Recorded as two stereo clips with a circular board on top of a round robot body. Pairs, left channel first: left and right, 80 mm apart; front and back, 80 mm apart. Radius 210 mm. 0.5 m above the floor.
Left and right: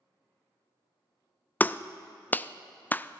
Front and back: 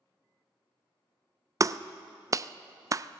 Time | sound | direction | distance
1.6 | a clap | 150° left | 0.5 m